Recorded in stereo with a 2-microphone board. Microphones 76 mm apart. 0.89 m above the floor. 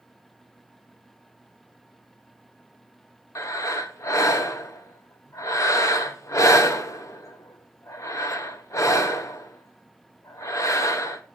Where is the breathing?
45° left (ahead or behind), 0.9 m.